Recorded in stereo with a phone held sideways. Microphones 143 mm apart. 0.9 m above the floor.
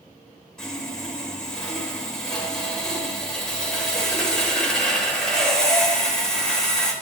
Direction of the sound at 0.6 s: 5° left (ahead or behind).